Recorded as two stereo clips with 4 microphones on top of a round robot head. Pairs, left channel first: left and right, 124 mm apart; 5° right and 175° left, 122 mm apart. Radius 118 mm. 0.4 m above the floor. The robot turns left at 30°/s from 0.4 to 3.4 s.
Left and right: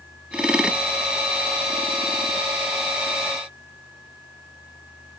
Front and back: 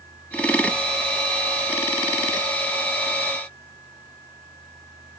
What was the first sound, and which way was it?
Only background noise.